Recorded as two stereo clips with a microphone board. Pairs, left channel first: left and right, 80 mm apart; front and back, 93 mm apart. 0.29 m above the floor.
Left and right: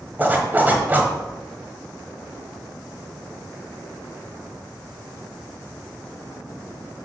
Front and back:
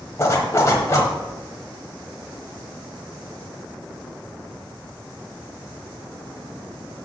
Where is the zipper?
35° right, 1.4 m.